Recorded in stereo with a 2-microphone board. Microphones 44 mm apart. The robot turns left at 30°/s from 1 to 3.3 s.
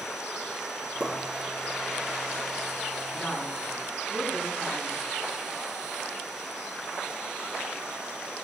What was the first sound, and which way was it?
A pop, 45° right (ahead or behind).